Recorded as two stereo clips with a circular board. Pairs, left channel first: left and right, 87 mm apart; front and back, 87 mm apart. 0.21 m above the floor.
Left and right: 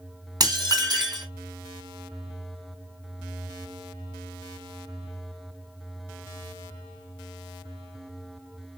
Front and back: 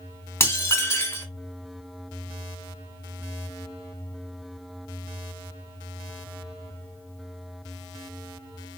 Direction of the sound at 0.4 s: 55° right.